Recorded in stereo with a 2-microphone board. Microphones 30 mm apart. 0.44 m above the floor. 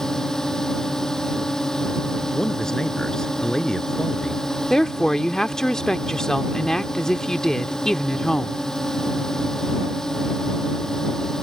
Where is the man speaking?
25° left (ahead or behind).